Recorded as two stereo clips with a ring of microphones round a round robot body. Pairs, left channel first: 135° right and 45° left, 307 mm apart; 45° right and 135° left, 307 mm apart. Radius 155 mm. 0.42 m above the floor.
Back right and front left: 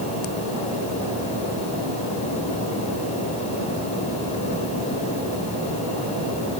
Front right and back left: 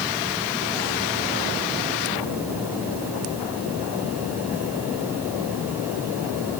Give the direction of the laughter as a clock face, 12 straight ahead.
I don't hear laughter.